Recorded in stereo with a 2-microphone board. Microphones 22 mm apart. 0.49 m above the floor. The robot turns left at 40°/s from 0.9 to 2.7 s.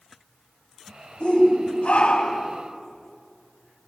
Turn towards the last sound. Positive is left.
turn(degrees=60)